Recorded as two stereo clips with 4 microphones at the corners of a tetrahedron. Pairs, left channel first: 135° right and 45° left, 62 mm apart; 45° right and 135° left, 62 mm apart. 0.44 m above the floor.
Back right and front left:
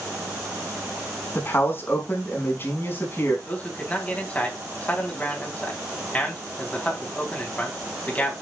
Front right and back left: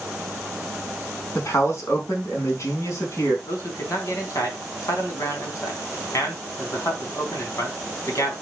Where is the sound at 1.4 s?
85° right, 4.5 m.